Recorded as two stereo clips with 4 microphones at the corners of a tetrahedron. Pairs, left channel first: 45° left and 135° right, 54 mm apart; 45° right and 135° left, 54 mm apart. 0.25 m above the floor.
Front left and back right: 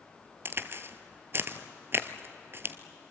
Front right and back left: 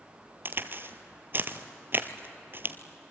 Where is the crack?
175° right, 1.1 m.